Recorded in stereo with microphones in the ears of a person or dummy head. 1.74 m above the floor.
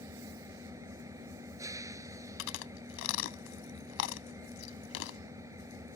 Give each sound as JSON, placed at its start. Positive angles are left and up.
{"t": 0.0, "sound": "an engine running", "side_deg": -20}
{"t": 2.4, "sound": "chewing", "side_deg": 75}